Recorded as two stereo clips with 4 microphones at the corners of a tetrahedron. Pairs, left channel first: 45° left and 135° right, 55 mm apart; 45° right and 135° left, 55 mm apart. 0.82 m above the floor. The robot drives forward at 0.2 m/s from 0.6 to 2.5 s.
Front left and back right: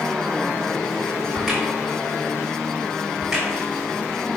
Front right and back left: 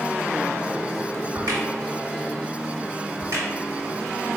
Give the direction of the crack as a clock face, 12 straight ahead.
7 o'clock.